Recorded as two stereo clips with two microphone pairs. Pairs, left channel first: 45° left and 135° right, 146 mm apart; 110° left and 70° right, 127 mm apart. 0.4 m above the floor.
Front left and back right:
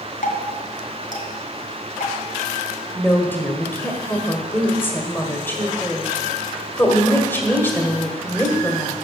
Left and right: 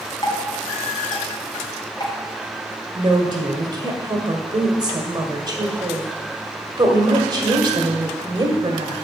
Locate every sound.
0.2 s dripping: 55° left, 2.5 m
3.0 s a woman speaking: 30° right, 1.5 m